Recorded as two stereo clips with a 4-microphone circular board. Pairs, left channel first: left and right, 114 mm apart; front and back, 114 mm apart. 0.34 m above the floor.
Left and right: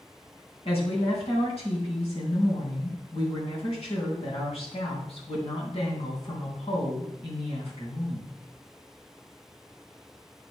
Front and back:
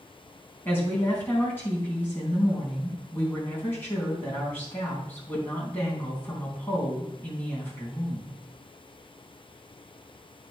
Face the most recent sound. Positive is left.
turn(degrees=70)